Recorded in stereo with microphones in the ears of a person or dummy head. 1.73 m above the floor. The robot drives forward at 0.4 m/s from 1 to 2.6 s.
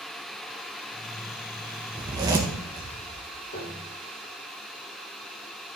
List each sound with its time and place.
2.0 s a zipper: 20° right (ahead or behind), 1.1 m
3.5 s a piano: 70° left (ahead or behind), 3.5 m